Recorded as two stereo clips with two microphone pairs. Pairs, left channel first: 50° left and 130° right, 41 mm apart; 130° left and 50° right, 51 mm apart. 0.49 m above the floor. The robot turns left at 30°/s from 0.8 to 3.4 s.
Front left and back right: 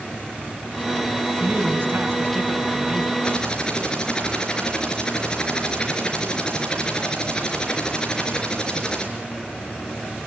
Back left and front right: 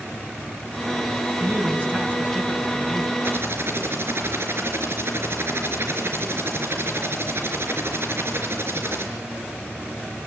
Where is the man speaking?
85° right, 5.5 m; by 3.1 s 140° right, 5.5 m.